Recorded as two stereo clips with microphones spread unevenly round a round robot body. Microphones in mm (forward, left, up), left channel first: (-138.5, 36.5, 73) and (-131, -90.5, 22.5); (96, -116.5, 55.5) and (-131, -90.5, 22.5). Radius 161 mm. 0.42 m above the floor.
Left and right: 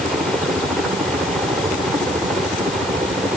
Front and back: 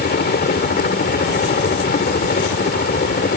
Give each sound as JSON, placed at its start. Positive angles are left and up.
{"t": 0.0, "sound": "a helicopter", "azimuth_deg": -25}